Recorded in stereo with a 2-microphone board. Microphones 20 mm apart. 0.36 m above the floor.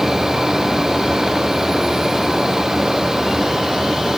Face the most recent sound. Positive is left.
No sound to turn to.